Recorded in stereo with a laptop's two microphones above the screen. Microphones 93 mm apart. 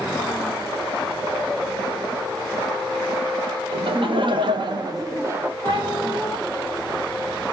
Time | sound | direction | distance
3.7 | laughter | 65° right (ahead or behind) | 1.1 m
5.6 | a cat meowing | 60° right (ahead or behind) | 1.7 m